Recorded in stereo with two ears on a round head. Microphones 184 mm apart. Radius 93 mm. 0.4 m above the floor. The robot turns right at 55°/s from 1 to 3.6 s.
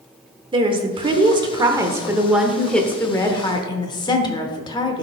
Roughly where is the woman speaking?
Right.